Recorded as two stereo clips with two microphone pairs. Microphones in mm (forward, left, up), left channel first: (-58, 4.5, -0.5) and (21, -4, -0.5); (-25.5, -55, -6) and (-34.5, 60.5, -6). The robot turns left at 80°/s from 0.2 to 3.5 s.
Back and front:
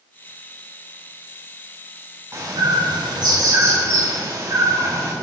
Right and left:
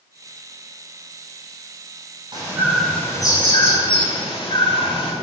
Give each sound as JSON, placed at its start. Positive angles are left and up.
{"t": 2.3, "sound": "a bird", "azimuth_deg": 45, "distance_m": 5.5}